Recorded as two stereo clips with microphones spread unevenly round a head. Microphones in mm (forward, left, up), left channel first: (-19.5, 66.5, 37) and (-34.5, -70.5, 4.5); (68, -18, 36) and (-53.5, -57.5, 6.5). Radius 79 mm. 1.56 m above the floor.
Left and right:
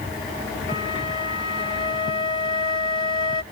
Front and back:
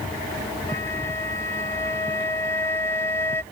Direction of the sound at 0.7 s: 70° left.